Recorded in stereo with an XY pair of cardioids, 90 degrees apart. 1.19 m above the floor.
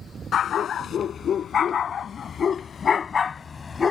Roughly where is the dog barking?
Ahead left.